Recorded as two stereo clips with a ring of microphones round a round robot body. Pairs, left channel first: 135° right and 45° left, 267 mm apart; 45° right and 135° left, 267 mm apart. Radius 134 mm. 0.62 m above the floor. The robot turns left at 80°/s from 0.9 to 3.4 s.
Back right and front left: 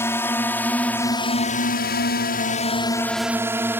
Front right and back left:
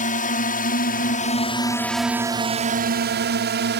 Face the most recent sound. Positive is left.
turn(degrees=125)